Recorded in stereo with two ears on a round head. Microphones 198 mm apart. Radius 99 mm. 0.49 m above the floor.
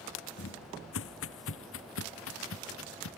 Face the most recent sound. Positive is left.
turn(degrees=65)  # may be behind; listen again after turning